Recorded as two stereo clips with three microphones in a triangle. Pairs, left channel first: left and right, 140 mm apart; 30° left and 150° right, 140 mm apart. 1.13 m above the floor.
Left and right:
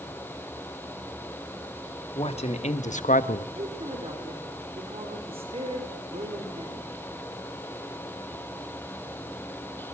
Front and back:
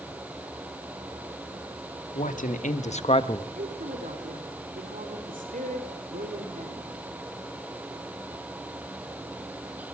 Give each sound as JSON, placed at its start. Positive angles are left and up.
{"t": 2.1, "sound": "a man speaking", "azimuth_deg": 45, "distance_m": 2.5}
{"t": 3.5, "sound": "a woman speaking", "azimuth_deg": -135, "distance_m": 4.0}